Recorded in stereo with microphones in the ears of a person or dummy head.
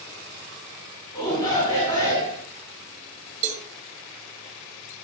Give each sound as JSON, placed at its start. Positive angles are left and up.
{"t": 1.1, "sound": "a shout", "side_deg": 25, "distance_m": 5.5}
{"t": 3.4, "sound": "a cowbell", "side_deg": -40, "distance_m": 2.0}